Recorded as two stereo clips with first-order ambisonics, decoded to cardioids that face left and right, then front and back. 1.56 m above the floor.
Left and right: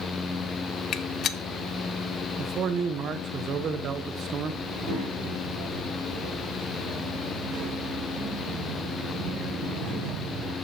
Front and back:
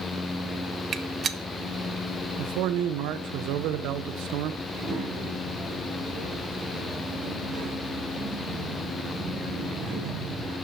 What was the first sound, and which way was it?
A gunshot, 125° left.